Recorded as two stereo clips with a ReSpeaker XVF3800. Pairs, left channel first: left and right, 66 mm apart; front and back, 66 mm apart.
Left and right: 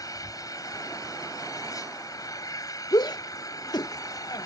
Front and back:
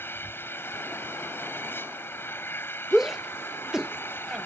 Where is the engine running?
60° left.